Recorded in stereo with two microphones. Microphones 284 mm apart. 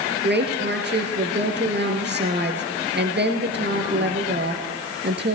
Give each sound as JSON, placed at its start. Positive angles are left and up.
{"t": 0.2, "sound": "a woman speaking", "side_deg": -40, "distance_m": 2.5}